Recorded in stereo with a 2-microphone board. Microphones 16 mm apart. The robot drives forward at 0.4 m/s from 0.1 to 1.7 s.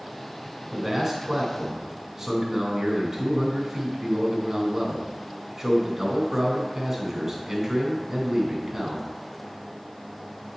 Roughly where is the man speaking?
Centre.